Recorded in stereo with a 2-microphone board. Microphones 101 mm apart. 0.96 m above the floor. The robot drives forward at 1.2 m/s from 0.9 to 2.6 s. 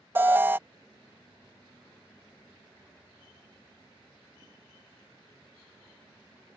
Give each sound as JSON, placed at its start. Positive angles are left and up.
{"t": 0.1, "sound": "an alarm", "side_deg": -20}